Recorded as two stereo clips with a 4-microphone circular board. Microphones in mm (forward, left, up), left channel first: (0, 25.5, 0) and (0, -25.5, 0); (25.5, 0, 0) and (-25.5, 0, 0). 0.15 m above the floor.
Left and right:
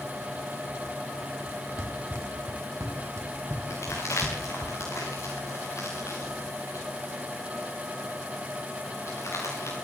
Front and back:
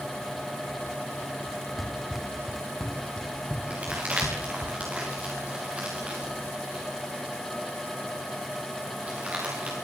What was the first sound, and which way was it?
Running footsteps, 95° right.